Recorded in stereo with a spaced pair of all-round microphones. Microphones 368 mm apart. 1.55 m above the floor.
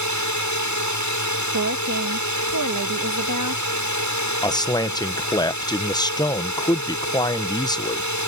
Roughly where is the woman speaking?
Right.